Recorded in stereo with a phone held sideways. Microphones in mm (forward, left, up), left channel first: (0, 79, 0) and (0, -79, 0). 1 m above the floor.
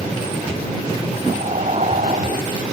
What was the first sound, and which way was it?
Breathing, 50° right (ahead or behind).